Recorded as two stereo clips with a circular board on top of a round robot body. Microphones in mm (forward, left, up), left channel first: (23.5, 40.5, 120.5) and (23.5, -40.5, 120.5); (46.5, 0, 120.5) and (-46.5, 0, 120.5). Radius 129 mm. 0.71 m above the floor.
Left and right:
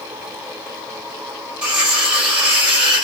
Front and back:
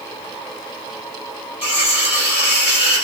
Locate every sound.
1.6 s cutlery clinking: 10° right, 1.8 m